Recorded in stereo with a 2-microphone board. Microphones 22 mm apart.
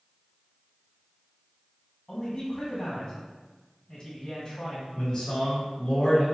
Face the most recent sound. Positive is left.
turn(degrees=30)  # may be behind; listen again after turning